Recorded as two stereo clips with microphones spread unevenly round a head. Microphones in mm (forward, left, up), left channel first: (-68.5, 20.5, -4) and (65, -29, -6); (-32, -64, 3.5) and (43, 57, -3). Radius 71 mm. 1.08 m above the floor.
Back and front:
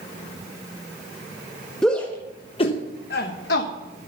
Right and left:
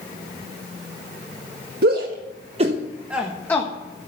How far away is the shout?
About 1.5 m.